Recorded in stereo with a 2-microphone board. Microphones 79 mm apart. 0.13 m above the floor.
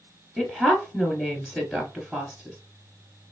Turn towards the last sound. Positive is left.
turn(degrees=-5)  # may be behind; listen again after turning